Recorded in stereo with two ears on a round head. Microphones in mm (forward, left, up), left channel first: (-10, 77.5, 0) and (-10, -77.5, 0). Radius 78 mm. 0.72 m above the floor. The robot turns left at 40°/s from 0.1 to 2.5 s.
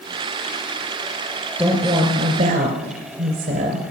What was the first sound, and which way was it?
A woman speaking, 10° right.